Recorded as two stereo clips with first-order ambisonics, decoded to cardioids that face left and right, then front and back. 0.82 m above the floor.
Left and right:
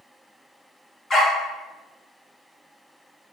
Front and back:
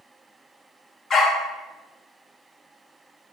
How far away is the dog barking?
About 0.5 m.